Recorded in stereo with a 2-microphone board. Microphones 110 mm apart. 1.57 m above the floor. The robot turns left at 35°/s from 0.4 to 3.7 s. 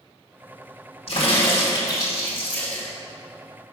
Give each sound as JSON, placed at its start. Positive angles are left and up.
{"t": 1.1, "sound": "a crack", "azimuth_deg": 65, "distance_m": 2.0}